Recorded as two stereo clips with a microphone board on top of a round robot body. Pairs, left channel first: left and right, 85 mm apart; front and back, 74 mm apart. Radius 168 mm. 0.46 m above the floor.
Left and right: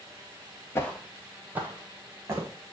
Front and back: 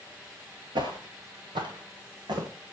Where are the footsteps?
150° left, 0.6 m; by 2.5 s 155° right, 2.5 m.